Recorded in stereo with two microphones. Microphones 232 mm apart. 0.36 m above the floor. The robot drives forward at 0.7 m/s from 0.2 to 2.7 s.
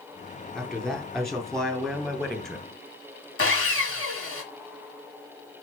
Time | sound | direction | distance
0.6 | a man speaking | centre (ahead or behind) | 3.5 m
3.4 | sawing | 65° left (ahead or behind) | 1.7 m